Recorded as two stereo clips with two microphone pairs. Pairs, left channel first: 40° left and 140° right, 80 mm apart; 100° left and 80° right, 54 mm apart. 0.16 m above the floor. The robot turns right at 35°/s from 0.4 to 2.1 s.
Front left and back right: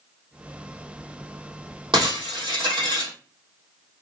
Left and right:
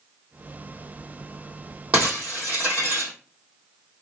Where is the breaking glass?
140° right, 2.5 m; by 3.1 s 135° right, 2.5 m.